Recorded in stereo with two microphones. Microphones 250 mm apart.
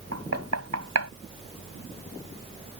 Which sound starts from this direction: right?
Knocking, at 0.1 s.